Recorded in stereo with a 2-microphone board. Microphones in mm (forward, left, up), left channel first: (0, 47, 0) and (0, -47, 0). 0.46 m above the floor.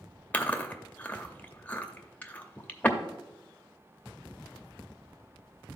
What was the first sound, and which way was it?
Chewing, 20° left (ahead or behind).